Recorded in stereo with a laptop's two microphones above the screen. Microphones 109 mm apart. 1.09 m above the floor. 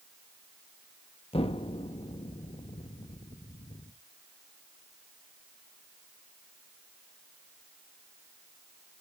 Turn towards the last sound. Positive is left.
turn(degrees=70)  # may be behind; listen again after turning